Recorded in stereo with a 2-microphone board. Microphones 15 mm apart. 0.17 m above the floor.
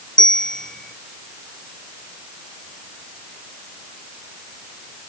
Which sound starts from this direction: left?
A bell, at 0.2 s.